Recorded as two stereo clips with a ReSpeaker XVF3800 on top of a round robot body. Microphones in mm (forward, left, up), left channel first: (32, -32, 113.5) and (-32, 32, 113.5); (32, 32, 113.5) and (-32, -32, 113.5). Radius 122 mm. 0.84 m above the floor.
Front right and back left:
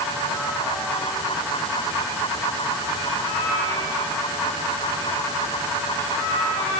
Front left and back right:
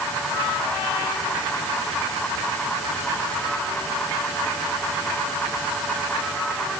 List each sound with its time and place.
Only background noise.